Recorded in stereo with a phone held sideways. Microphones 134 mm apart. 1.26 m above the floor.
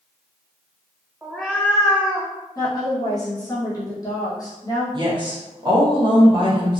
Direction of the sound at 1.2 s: 10° right (ahead or behind).